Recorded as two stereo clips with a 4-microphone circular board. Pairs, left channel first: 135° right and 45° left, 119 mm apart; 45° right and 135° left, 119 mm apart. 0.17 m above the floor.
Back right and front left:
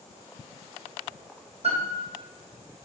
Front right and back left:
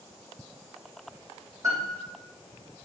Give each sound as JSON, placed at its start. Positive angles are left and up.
{"t": 1.6, "sound": "a piano", "azimuth_deg": 75, "distance_m": 3.5}